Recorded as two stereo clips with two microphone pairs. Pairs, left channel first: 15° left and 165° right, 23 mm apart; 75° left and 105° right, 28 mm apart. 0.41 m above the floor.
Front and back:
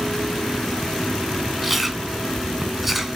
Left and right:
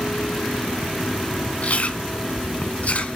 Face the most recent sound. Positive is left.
turn(degrees=115)